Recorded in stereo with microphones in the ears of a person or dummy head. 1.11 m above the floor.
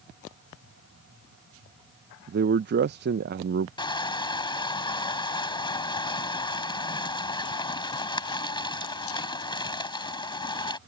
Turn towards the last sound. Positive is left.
turn(degrees=25)  # may be behind; listen again after turning